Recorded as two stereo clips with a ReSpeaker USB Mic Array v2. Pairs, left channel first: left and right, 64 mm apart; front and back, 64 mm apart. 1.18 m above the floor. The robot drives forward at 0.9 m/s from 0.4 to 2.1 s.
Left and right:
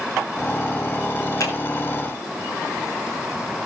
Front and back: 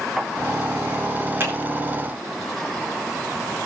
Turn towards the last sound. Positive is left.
turn(degrees=130)